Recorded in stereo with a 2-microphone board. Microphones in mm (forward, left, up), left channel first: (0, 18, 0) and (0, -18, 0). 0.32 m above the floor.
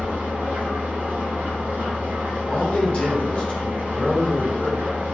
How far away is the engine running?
About 1.8 m.